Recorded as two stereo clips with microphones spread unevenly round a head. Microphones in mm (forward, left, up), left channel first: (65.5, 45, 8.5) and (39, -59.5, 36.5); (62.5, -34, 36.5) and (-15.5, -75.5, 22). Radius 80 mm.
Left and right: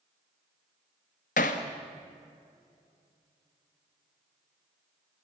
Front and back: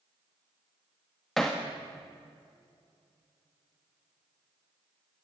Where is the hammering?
110° left, 1.6 m.